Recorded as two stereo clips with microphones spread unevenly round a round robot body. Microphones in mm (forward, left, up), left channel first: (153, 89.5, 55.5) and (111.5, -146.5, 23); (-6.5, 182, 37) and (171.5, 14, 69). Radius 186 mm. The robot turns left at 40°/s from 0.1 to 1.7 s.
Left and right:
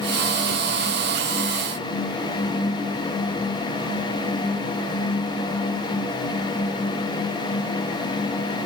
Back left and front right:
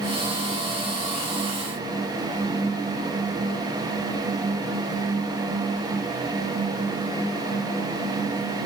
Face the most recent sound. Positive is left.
No sound to turn to.